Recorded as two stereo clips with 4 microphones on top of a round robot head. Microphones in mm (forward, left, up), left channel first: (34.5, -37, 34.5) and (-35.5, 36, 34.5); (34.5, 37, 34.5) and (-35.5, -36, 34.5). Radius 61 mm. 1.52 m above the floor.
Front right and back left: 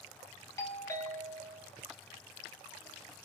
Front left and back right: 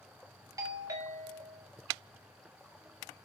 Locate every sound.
0.6 s a doorbell: 95° right, 0.8 m